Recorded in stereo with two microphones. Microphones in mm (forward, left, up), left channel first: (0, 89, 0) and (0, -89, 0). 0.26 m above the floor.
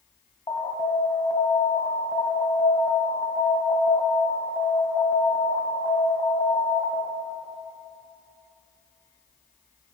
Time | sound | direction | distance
0.5 | an alarm | 30° left (ahead or behind) | 1.5 m